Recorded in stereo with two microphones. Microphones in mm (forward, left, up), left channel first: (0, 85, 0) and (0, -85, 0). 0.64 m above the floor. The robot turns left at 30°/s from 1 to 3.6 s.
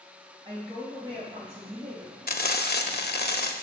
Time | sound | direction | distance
0.5 | a woman speaking | 30° right | 3 m
2.3 | frying | 115° left | 0.5 m